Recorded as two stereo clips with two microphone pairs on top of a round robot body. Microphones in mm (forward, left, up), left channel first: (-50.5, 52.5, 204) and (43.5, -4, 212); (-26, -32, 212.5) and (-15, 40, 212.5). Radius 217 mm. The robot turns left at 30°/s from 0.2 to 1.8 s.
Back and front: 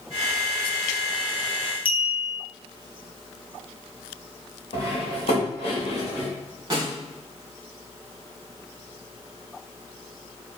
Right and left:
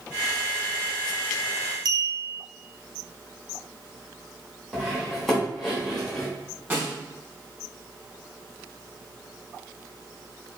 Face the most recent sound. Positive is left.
turn(degrees=20)